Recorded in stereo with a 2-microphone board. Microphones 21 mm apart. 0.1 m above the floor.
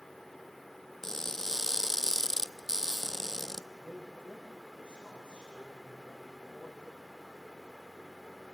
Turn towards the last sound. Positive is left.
turn(degrees=-70)  # may be behind; listen again after turning